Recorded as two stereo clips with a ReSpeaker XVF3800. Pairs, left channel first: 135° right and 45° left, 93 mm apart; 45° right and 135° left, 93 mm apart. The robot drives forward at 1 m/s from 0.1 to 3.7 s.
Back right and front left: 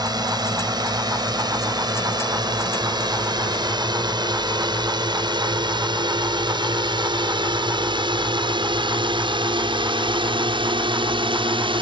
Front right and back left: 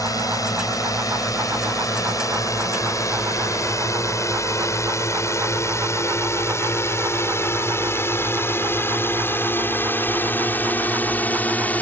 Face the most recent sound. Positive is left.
turn(degrees=25)